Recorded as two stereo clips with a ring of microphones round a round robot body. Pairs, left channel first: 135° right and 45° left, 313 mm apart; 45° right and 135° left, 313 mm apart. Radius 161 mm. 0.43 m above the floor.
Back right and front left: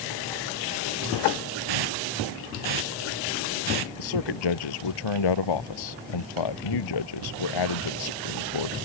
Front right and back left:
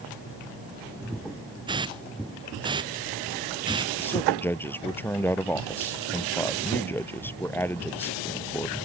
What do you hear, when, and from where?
1.7 s a hiss: 60° left
4.0 s a man speaking: 130° right